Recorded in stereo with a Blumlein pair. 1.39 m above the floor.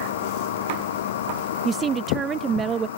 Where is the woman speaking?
20° right.